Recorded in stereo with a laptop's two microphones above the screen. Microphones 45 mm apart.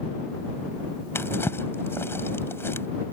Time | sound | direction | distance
1.1 | a drawer | 60° left (ahead or behind) | ?